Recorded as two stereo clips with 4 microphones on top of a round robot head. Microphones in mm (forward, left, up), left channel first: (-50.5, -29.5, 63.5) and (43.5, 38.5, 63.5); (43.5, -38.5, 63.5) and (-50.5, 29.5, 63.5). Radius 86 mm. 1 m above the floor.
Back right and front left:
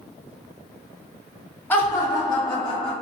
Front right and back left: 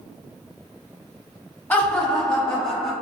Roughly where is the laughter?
Right.